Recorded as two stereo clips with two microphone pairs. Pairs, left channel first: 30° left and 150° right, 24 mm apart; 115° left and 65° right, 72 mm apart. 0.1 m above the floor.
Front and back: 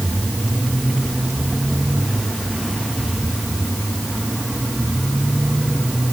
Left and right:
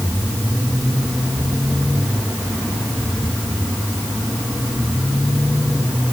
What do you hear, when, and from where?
Only background noise.